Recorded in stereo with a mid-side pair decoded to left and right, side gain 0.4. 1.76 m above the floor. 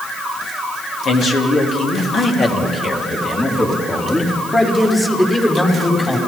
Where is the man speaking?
65° left, 4 m; by 6.2 s 15° left, 6.5 m.